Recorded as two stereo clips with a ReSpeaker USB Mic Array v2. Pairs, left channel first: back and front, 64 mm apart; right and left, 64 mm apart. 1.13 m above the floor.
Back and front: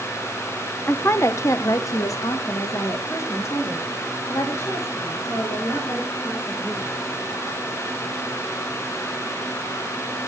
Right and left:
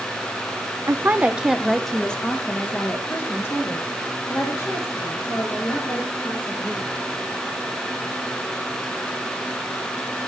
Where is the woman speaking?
130° left, 0.8 m; by 6.9 s 135° right, 4 m.